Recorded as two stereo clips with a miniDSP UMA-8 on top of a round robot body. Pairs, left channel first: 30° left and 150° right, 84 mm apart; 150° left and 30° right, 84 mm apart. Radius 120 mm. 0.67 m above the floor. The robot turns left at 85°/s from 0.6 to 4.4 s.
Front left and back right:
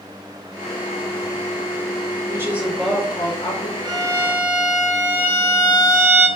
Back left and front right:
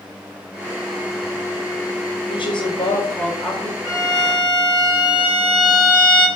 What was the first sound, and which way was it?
A woman speaking, 160° left.